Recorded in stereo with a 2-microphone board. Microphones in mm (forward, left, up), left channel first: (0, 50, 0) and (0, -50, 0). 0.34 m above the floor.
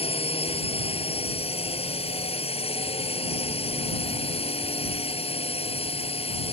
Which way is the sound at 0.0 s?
75° left (ahead or behind).